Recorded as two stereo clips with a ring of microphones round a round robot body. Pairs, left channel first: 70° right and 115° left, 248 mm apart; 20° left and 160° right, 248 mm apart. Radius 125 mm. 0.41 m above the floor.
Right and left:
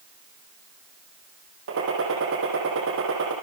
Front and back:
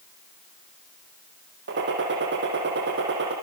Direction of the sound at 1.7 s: 155° left.